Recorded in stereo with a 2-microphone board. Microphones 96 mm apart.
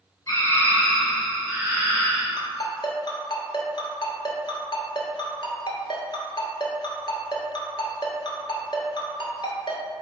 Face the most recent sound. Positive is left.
turn(degrees=55)  # may be behind; listen again after turning